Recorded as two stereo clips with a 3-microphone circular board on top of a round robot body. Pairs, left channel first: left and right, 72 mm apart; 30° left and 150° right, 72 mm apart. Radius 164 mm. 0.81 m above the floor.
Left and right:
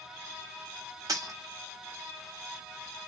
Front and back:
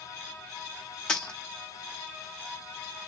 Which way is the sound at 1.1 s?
50° right.